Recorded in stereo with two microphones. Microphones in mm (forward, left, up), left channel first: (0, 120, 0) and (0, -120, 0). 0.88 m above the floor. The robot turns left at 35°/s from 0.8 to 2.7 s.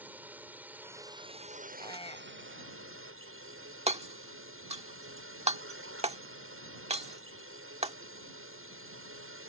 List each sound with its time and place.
0.0 s a drone: 10° right; by 9.5 s 75° right
1.8 s a squeak: 15° left (ahead or behind); by 2.7 s 45° left (ahead or behind)
3.9 s hammering: 25° right (ahead or behind)